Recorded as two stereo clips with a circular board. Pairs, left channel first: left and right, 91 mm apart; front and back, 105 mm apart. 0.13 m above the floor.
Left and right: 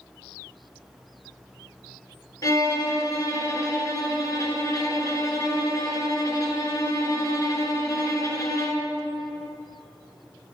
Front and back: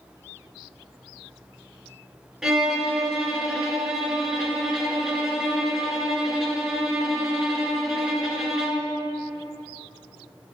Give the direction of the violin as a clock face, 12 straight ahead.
9 o'clock.